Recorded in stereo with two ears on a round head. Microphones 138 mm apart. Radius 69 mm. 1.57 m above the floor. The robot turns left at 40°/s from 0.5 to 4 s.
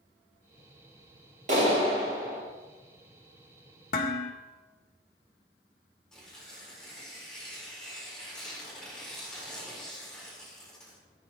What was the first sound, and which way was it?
A clap, 125° right.